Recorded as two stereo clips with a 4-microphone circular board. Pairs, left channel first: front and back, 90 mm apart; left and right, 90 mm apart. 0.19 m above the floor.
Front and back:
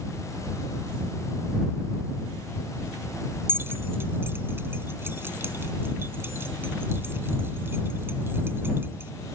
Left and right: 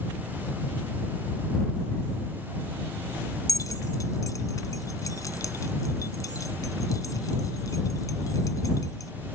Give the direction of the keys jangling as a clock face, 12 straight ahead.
8 o'clock.